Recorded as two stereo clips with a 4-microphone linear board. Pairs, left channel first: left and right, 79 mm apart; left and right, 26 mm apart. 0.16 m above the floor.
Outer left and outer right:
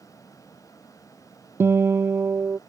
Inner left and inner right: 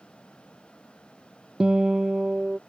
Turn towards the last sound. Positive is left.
turn(degrees=-30)  # may be behind; listen again after turning